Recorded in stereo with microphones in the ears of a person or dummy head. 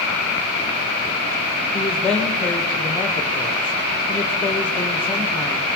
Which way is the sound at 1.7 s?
10° left (ahead or behind).